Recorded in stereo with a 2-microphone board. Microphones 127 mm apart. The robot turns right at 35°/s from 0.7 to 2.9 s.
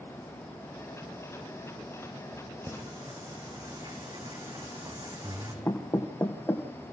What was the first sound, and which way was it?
Singing, 25° right (ahead or behind).